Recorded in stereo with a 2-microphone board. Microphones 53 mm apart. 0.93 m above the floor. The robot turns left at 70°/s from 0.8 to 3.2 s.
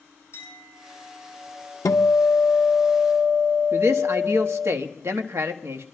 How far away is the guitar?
About 0.8 m.